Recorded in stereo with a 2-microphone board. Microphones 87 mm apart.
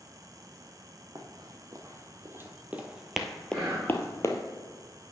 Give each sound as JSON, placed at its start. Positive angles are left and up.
{"t": 1.1, "sound": "running footsteps", "side_deg": -50, "distance_m": 1.4}
{"t": 3.5, "sound": "whispering", "side_deg": -20, "distance_m": 4.0}